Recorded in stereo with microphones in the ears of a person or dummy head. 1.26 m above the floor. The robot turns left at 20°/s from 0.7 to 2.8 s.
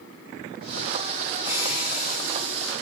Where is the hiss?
15° right (ahead or behind), 8 m; by 2.7 s 10° left (ahead or behind), 8 m.